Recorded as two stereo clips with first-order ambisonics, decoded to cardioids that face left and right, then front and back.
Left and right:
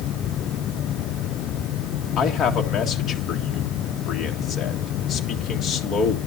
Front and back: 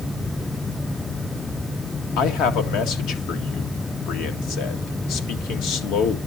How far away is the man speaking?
About 2 m.